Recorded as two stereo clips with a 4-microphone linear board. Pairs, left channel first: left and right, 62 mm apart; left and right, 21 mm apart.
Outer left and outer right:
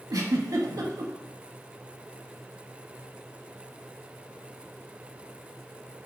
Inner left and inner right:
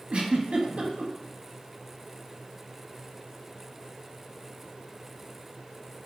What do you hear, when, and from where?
0.1 s a giggle: 65° right (ahead or behind), 0.5 m